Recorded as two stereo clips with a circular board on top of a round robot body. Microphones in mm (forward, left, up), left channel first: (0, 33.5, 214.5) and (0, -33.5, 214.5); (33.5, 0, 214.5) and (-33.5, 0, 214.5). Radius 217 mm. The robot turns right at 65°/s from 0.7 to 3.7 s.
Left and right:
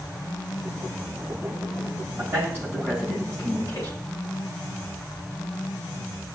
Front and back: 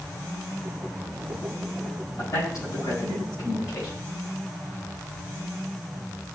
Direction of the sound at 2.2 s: 60° right.